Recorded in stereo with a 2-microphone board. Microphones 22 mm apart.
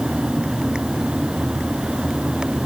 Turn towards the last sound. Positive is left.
No sound to turn to.